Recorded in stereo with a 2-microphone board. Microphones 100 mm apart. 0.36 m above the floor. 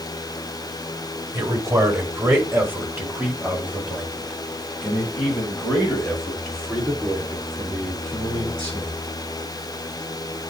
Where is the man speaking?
35° right (ahead or behind), 1.3 m; by 9.0 s 5° left (ahead or behind), 5 m.